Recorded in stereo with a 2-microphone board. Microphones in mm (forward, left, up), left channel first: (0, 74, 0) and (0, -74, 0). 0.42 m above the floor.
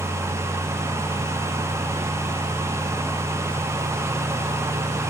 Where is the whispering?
I don't hear whispering.